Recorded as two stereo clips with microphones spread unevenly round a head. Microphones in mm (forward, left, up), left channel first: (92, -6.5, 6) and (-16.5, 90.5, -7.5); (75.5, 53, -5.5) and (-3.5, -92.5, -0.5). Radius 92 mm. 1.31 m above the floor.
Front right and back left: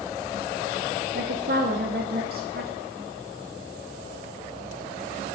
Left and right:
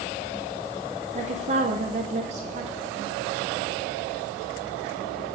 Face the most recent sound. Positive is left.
turn(degrees=-175)